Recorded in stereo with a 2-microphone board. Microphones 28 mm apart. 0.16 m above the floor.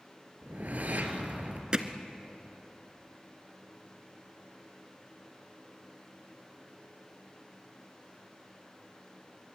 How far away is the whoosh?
About 3 m.